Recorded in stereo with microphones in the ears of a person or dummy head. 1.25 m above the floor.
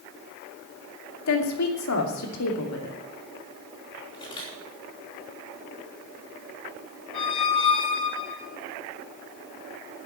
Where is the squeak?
25° left (ahead or behind), 3 m.